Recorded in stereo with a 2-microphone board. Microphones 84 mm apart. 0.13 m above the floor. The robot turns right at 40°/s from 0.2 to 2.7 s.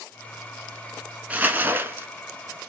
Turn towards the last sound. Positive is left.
turn(degrees=-85)